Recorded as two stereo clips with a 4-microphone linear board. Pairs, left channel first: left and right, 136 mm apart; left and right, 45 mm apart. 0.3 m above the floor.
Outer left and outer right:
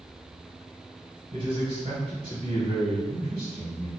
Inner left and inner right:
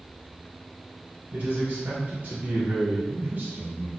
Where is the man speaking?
45° right (ahead or behind), 1.4 m.